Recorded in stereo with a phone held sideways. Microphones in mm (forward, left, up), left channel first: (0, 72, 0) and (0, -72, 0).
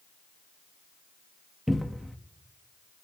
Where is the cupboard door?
Centre (ahead or behind), 0.6 m.